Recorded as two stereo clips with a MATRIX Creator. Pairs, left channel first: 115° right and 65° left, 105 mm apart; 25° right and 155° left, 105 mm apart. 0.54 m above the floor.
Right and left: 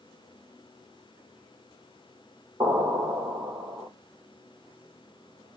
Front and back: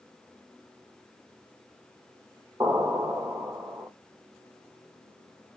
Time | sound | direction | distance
2.6 | an explosion | 110° left | 1.9 m